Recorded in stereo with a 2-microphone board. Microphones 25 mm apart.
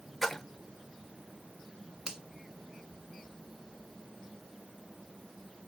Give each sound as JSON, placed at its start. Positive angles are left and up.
{"t": 0.2, "sound": "a splash", "side_deg": 5, "distance_m": 0.8}
{"t": 2.1, "sound": "a finger snap", "side_deg": -30, "distance_m": 1.7}